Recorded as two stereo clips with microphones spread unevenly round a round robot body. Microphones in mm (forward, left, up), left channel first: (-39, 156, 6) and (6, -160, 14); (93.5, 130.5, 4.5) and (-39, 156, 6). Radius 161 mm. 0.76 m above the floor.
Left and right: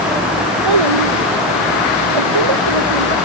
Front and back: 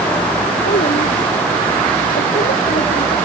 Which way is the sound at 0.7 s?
65° right.